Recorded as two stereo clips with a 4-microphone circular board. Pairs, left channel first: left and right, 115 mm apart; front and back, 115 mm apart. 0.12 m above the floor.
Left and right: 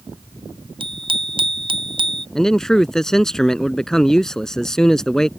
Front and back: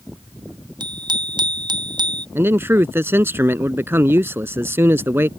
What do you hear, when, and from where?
0.8 s a bicycle bell: 130° right
2.4 s a man speaking: 170° left